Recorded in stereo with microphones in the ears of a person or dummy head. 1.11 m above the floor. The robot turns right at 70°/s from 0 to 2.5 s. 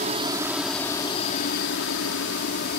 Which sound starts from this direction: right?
A helicopter, at 0.0 s.